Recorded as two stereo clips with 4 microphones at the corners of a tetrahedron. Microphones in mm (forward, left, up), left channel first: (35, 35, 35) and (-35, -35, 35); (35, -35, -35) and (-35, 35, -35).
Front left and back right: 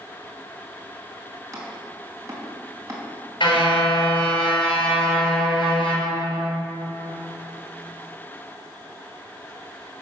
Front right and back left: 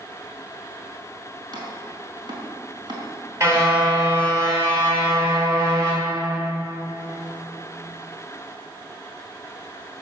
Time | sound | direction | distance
1.5 | chopping | 170° left | 4 m
3.4 | a car horn | 80° left | 5.5 m